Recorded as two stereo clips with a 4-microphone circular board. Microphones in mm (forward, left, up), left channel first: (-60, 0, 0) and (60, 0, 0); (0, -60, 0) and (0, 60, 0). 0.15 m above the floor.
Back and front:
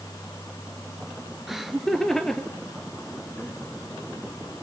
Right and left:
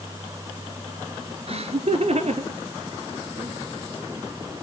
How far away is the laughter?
About 2.5 m.